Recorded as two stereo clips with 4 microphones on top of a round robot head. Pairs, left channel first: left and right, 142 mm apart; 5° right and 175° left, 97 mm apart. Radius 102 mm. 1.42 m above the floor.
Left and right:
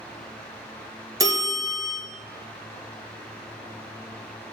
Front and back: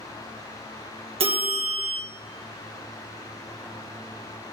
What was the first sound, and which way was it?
A bell, 155° right.